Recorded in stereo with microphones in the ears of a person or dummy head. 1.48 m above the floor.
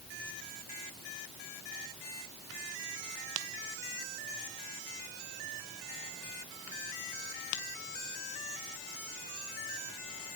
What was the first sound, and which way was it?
Only background noise.